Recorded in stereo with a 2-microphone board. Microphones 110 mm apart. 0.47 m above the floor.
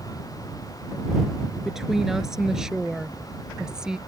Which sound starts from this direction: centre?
A woman speaking, at 1.6 s.